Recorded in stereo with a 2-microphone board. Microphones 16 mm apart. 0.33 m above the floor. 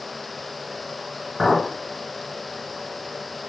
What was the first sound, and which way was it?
A clink, 45° left (ahead or behind).